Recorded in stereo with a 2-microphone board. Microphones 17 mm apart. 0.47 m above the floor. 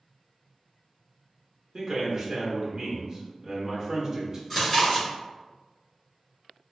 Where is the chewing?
15° left (ahead or behind), 1.9 m.